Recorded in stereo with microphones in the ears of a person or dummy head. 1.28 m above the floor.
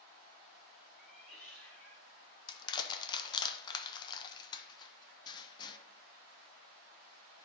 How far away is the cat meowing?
About 3 m.